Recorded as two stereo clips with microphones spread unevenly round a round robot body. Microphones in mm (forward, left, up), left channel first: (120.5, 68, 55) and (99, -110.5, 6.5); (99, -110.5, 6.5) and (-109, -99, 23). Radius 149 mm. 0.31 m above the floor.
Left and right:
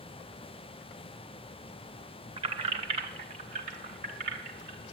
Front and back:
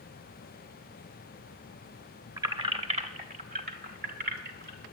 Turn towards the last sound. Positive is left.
turn(degrees=-150)